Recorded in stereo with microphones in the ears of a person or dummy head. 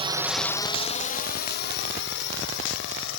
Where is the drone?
30° right (ahead or behind); by 3.2 s 65° left (ahead or behind).